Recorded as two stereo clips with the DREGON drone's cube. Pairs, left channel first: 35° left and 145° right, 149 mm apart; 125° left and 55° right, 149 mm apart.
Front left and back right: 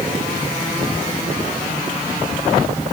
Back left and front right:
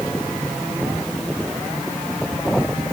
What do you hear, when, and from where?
Only background noise.